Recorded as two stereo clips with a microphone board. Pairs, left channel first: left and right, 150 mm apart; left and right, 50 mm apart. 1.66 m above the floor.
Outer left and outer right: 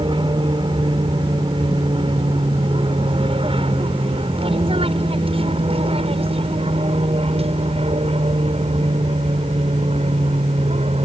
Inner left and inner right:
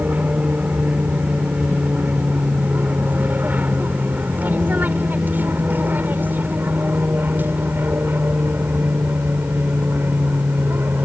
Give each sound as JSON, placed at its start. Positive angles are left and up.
{"t": 0.0, "sound": "an aircraft", "side_deg": -30}